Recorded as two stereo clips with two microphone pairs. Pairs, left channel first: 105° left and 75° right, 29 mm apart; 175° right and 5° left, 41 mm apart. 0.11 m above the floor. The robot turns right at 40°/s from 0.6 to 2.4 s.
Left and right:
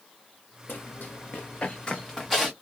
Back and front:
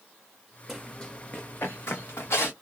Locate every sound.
0.7 s running footsteps: 85° left, 0.7 m; by 2.5 s 160° right, 1.4 m